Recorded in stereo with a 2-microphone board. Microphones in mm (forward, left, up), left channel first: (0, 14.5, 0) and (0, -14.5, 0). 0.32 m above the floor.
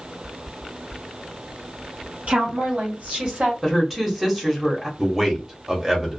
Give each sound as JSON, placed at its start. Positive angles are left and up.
{"t": 2.3, "sound": "a woman speaking", "side_deg": -50, "distance_m": 2.0}
{"t": 3.6, "sound": "a woman speaking", "side_deg": -10, "distance_m": 1.0}
{"t": 5.0, "sound": "a man speaking", "side_deg": -15, "distance_m": 1.0}